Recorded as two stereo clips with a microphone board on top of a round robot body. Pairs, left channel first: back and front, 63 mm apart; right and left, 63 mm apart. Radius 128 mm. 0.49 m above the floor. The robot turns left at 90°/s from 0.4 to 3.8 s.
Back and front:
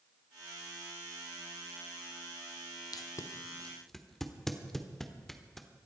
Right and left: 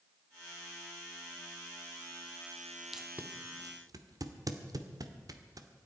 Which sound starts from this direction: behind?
Tape being pulled, at 2.9 s.